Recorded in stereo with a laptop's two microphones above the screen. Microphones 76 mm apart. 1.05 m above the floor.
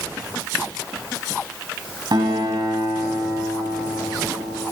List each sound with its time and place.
2.1 s a guitar: 75° right (ahead or behind), 3 m